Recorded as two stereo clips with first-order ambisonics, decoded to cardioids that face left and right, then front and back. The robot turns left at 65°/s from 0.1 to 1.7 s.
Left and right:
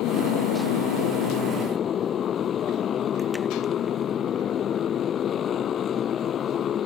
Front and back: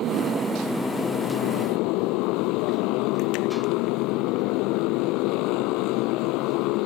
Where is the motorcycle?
130° left; by 6.9 s 30° left.